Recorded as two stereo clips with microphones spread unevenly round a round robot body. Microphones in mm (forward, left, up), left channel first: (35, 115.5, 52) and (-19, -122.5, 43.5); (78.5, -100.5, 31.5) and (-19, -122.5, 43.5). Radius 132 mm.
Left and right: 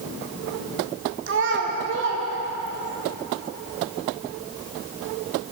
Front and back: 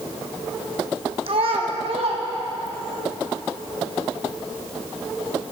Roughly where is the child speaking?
Behind right.